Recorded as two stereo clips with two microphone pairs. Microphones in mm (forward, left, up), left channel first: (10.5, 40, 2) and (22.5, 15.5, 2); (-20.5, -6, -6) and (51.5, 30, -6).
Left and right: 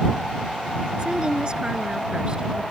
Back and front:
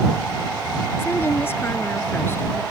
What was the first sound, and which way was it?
A woman speaking, 105° right.